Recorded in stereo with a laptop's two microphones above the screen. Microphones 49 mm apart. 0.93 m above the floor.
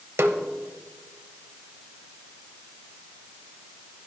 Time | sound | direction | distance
0.2 | a snare drum | 65° right (ahead or behind) | 1.2 m